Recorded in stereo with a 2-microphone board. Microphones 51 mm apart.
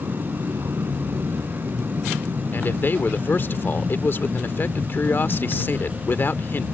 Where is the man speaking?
45° left (ahead or behind).